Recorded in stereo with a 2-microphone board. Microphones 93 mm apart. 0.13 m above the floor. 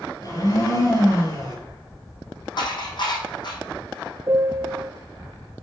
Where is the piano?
35° right (ahead or behind), 0.5 m.